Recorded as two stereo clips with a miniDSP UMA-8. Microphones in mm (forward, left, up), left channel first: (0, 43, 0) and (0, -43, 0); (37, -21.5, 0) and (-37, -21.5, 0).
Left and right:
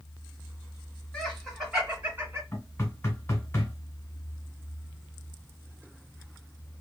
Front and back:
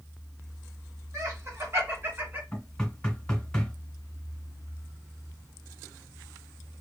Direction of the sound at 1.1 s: 175° left.